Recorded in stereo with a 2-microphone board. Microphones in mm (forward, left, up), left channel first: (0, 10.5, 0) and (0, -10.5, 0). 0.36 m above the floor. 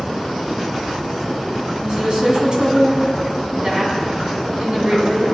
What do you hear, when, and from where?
1.8 s a woman speaking: 45° right (ahead or behind), 3 m